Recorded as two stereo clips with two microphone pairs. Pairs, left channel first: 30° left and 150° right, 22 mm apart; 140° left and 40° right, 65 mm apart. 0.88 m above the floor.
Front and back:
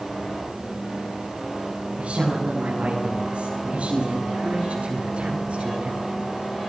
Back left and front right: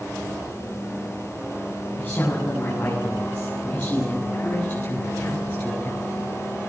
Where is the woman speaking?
165° right, 9.5 m; by 6.1 s 170° right, 11.5 m.